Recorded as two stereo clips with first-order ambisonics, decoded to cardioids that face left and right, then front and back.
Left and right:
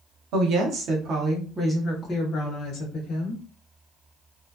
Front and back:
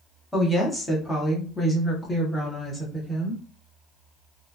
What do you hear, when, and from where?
0.3 s a woman speaking: 90° right, 1.0 m; by 3.4 s 80° left, 1.1 m